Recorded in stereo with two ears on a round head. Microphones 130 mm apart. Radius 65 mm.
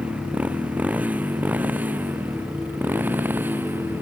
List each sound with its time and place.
0.0 s a motorcycle: 10° right (ahead or behind); by 4.0 s 15° right (ahead or behind)